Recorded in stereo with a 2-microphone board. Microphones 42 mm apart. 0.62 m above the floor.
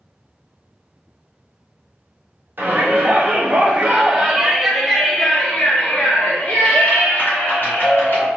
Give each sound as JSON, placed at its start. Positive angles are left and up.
{"t": 2.6, "sound": "a shout", "side_deg": -55, "distance_m": 1.6}